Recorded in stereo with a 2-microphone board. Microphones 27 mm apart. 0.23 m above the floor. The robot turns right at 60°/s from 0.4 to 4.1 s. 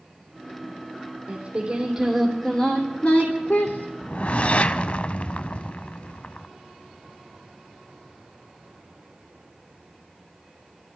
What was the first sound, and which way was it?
Singing, 55° right.